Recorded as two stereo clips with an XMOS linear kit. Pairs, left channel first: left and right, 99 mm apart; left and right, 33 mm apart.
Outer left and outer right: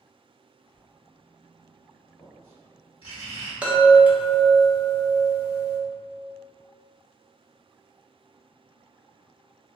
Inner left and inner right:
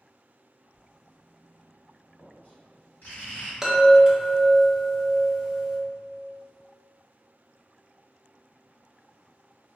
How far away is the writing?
About 1.4 m.